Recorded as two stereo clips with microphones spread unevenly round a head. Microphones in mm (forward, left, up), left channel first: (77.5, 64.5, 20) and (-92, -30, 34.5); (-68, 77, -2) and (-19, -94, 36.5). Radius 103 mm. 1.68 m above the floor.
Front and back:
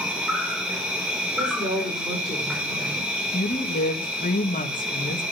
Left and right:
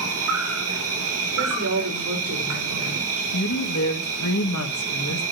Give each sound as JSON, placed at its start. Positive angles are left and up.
{"t": 0.0, "sound": "an insect", "azimuth_deg": -65, "distance_m": 3.5}
{"t": 1.4, "sound": "a woman speaking", "azimuth_deg": -80, "distance_m": 5.0}
{"t": 3.3, "sound": "a woman speaking", "azimuth_deg": 85, "distance_m": 2.5}